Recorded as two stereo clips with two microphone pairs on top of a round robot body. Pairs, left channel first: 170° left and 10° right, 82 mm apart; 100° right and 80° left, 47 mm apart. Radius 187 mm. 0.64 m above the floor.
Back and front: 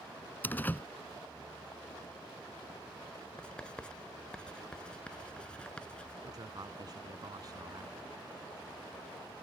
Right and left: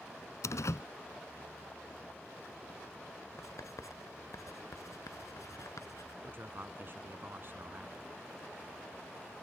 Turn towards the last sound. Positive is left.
turn(degrees=35)